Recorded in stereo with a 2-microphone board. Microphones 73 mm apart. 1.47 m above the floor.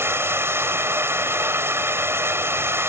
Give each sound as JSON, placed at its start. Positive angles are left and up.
{"t": 0.0, "sound": "running water", "side_deg": -35}